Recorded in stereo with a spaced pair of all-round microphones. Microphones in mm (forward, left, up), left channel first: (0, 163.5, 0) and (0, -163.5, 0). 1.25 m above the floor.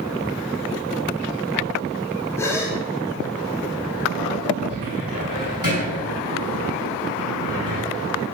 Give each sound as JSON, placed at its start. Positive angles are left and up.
{"t": 2.4, "sound": "a gasp", "side_deg": 10, "distance_m": 3.5}
{"t": 4.7, "sound": "a cupboard door", "side_deg": -65, "distance_m": 7.0}